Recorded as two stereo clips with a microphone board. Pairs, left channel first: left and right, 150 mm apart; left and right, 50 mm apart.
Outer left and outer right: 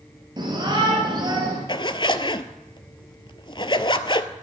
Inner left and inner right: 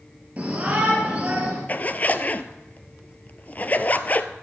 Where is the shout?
30° right (ahead or behind), 3 m.